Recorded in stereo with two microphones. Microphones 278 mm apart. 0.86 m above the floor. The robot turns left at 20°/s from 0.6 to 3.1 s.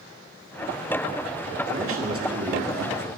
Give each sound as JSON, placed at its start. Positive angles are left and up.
{"t": 1.7, "sound": "a man speaking", "side_deg": -45, "distance_m": 1.9}